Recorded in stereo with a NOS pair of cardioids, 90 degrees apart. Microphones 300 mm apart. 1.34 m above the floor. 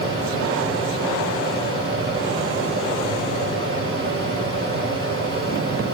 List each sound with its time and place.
0.0 s a fan: 45° right, 8 m